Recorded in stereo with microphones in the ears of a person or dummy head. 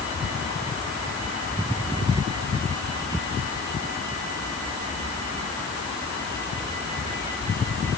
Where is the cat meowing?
No cat meowing in this recording.